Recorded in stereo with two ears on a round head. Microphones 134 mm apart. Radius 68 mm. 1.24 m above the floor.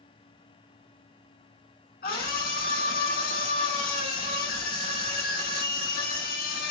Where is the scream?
75° left (ahead or behind), 5.5 m.